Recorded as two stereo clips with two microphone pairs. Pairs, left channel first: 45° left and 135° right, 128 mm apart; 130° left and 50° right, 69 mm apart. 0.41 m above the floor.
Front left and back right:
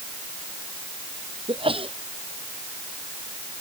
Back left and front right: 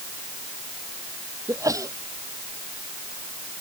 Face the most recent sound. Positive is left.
turn(degrees=-85)